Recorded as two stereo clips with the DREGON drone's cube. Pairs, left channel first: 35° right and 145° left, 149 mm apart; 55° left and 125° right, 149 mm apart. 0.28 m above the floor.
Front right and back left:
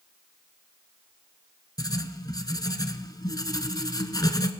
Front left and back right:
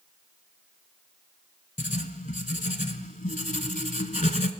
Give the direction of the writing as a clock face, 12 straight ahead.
11 o'clock.